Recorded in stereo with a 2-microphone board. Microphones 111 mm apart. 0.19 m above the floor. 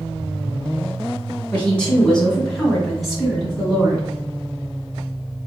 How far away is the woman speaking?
About 1.8 m.